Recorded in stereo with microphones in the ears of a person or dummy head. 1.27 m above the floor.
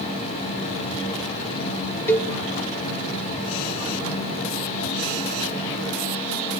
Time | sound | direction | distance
2.1 | a cowbell | 10° left (ahead or behind) | 0.8 m